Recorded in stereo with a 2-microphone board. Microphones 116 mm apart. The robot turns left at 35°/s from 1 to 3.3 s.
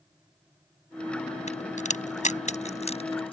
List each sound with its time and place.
1.5 s a crack: 70° left (ahead or behind); by 3.3 s 45° left (ahead or behind)